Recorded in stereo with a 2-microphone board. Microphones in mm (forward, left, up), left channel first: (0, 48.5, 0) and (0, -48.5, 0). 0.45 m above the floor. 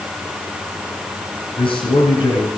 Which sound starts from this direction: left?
A man speaking, at 1.6 s.